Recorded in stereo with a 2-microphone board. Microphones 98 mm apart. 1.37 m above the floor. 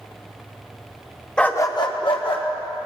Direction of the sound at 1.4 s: 5° left (ahead or behind).